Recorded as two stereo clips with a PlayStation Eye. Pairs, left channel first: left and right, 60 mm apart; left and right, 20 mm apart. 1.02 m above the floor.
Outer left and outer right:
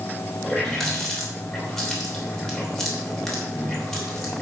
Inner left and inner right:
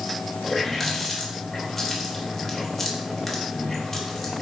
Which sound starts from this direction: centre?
A running tap, at 0.4 s.